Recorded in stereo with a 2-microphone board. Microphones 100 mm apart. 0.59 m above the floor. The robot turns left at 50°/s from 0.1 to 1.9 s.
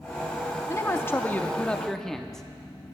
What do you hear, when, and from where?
0.7 s a man speaking: 30° left (ahead or behind), 0.6 m; by 2.4 s 5° left (ahead or behind), 0.6 m